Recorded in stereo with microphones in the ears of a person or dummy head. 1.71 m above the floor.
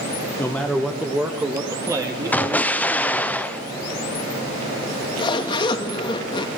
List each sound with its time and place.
0.4 s a man speaking: 10° left (ahead or behind), 1.6 m; by 3.3 s 25° right (ahead or behind), 4.5 m
2.3 s an explosion: 5° left (ahead or behind), 1.0 m
4.8 s a zipper: 25° left (ahead or behind), 2.5 m